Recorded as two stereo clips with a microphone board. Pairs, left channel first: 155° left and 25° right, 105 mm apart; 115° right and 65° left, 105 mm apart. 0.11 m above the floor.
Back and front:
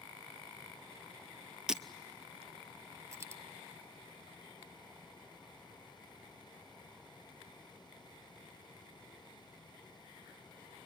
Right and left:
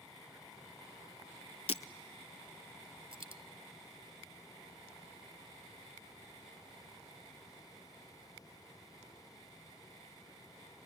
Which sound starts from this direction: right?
Breaking glass, at 1.7 s.